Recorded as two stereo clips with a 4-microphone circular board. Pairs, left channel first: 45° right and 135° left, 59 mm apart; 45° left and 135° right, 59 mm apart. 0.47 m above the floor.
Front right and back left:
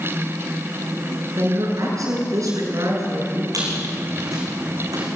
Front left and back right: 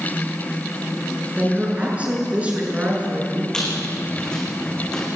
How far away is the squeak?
About 5.5 m.